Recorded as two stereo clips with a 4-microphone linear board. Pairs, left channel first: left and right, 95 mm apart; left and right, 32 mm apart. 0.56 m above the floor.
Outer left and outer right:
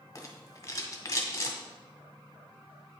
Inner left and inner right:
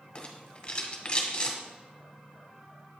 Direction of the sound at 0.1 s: 35° left (ahead or behind).